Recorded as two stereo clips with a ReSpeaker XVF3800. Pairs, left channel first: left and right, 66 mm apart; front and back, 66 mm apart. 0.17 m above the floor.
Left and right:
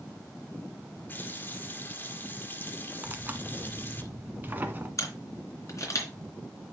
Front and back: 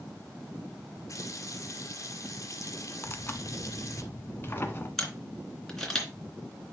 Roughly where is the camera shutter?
Left.